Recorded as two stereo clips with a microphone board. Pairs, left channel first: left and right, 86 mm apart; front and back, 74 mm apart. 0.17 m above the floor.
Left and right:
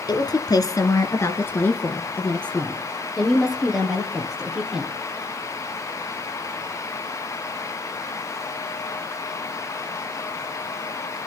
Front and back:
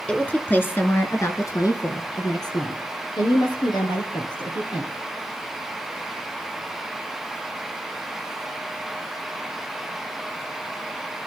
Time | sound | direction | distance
0.1 | a woman speaking | 70° left | 2.5 m